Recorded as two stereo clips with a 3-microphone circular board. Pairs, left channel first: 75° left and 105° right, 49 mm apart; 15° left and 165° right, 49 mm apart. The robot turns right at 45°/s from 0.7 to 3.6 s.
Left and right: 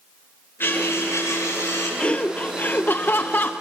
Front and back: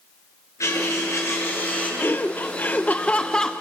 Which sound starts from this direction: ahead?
Laughter, at 2.0 s.